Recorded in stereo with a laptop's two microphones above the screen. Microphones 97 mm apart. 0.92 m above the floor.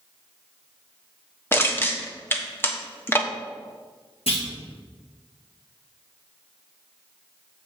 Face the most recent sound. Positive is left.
turn(degrees=75)  # may be behind; listen again after turning